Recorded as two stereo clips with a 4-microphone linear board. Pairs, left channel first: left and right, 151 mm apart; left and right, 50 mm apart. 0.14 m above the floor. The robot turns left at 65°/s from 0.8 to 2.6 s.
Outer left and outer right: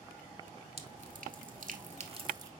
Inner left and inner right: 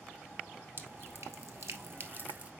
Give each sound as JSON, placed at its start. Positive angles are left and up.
{"t": 0.8, "sound": "dripping", "side_deg": -40, "distance_m": 1.2}